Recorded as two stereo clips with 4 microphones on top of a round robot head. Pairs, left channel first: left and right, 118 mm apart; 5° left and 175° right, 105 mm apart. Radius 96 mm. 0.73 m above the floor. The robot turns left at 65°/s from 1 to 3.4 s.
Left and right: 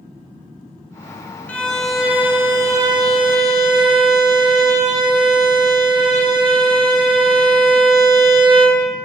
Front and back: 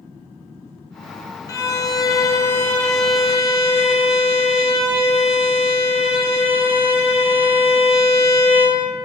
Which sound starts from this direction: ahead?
A violin, at 1.5 s.